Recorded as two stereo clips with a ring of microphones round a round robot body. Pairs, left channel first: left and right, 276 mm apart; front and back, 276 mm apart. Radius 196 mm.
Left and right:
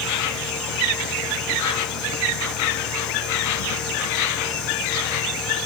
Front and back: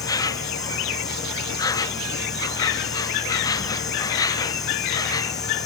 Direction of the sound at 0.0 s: 75° left.